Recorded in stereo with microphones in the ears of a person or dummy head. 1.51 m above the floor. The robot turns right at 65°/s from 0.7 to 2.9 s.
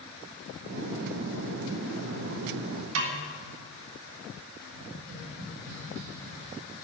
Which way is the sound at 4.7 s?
80° right.